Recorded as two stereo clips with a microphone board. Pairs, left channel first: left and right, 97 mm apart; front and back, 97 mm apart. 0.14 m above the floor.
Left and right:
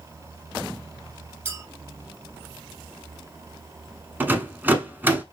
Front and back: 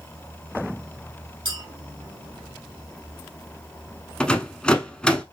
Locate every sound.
1.4 s a clink: 150° right, 1.7 m
4.2 s a rattle: 65° right, 0.6 m